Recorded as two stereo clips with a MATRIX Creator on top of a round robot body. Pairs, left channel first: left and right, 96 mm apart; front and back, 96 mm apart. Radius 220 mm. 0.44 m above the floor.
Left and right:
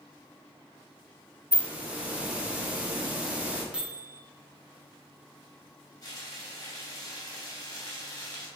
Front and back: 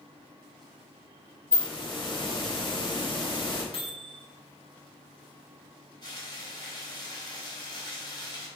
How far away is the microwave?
About 2 m.